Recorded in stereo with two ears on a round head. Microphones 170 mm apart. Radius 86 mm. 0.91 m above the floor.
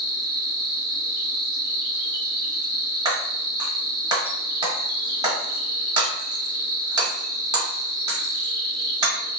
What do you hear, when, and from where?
0.0 s an insect: 20° right (ahead or behind), 0.8 m
3.0 s breaking glass: 20° right (ahead or behind), 1.1 m